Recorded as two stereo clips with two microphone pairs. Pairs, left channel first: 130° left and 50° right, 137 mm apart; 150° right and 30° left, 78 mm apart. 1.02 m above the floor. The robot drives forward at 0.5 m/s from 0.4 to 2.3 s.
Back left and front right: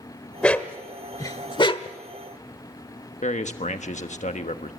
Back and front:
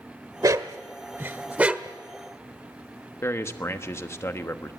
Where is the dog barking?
50° left, 1.0 m; by 2.0 s 110° left, 0.9 m.